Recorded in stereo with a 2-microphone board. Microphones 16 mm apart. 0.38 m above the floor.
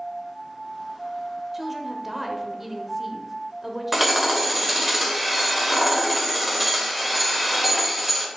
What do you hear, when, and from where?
1.5 s a woman speaking: 10° right (ahead or behind), 1.1 m
3.9 s hammering: 10° right (ahead or behind), 1.3 m